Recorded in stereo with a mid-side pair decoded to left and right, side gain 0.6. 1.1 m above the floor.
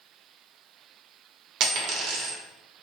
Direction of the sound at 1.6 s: 65° right.